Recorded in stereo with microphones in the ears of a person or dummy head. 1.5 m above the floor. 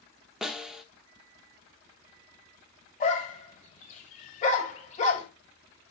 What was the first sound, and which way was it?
A snare drum, 5° right (ahead or behind).